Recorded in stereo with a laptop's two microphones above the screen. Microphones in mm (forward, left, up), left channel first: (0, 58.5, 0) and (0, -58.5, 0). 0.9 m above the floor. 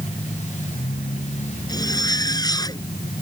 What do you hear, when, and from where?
0.0 s a machine running: 85° left
1.7 s a zipper: 35° left (ahead or behind)